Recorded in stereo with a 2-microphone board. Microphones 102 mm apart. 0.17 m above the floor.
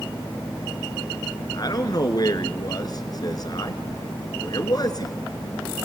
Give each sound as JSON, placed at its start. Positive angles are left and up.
{"t": 1.5, "sound": "a man speaking", "side_deg": 45, "distance_m": 2.5}